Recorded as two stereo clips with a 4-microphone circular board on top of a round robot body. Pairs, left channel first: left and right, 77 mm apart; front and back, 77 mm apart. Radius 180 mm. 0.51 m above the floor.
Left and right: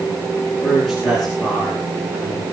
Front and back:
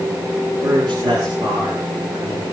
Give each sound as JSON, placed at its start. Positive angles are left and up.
{"t": 0.6, "sound": "a man speaking", "azimuth_deg": 180, "distance_m": 9.0}